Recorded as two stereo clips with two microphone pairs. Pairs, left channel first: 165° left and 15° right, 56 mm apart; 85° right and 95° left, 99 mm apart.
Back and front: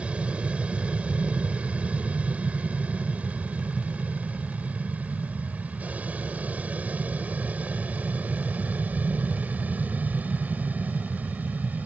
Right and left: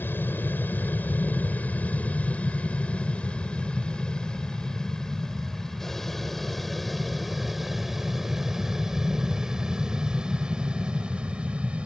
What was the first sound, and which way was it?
An aircraft, 50° right.